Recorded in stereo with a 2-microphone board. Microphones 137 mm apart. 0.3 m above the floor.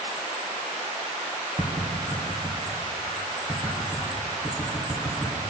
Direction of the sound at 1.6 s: 5° right (ahead or behind).